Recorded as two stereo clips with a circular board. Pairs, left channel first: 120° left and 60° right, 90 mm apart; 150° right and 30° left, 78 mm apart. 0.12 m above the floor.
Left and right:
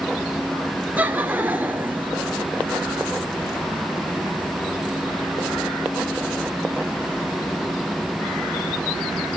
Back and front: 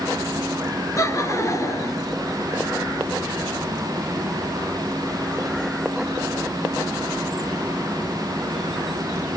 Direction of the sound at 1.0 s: 120° right.